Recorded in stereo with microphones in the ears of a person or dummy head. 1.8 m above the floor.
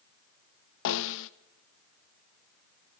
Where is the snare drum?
70° left (ahead or behind), 0.9 m.